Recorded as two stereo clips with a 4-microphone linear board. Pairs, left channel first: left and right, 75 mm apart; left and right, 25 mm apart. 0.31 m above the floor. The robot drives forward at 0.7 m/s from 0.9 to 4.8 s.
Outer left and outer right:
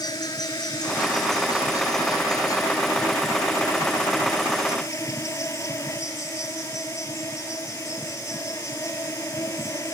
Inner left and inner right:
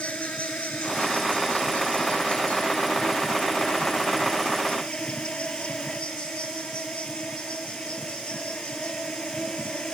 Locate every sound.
0.0 s an insect: 60° left (ahead or behind); by 9.9 s 40° left (ahead or behind)